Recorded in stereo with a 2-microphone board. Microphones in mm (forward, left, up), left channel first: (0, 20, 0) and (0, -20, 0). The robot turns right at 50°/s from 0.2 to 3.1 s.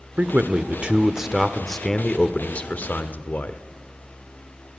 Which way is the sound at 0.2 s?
65° right.